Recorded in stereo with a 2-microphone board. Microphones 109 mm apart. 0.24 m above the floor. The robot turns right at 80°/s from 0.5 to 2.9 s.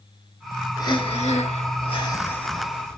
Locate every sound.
0.8 s breathing: 35° left, 0.8 m; by 3.0 s 155° right, 0.8 m